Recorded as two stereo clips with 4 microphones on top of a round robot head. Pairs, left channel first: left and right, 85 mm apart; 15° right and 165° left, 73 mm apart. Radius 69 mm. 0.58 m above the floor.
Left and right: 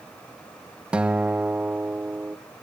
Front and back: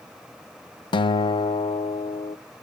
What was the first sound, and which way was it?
A guitar, 10° right.